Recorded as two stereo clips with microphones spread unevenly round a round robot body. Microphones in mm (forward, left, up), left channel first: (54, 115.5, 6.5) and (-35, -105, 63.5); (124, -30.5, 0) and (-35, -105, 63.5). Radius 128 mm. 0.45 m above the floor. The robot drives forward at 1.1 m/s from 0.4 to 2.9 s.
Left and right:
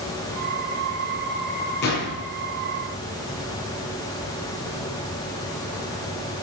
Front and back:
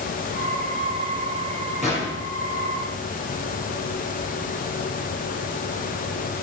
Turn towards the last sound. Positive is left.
turn(degrees=125)